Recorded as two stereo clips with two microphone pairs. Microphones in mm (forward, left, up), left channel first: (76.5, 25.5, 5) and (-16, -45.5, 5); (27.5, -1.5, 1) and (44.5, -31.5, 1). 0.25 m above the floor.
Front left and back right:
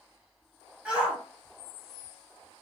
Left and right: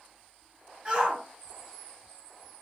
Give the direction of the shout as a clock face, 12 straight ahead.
2 o'clock.